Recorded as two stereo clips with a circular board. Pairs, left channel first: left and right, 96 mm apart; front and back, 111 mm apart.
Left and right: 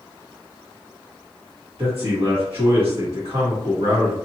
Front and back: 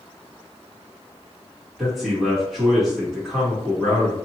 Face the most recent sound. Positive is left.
turn(degrees=-95)